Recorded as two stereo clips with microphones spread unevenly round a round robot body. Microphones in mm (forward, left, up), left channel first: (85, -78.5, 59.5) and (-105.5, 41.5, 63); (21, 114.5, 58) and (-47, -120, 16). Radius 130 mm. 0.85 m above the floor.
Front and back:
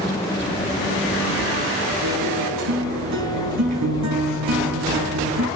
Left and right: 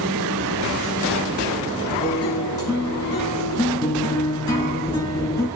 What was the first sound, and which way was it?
A guitar, 150° left.